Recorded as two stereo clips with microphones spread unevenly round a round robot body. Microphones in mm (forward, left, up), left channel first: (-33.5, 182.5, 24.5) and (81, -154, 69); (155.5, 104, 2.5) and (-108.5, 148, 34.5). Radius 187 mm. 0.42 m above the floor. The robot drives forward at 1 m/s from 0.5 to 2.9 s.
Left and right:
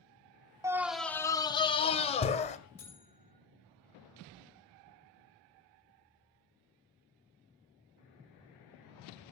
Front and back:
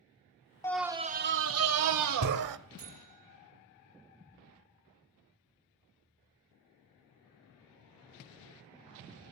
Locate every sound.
0.6 s a scream: 15° left, 0.8 m; by 2.6 s straight behind, 1.8 m
2.8 s a buzzer: 165° right, 5.5 m; by 3.4 s 170° right, 6 m